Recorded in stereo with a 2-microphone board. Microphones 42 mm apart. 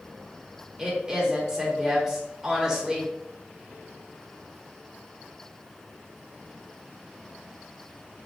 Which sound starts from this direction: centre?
A woman speaking, at 0.8 s.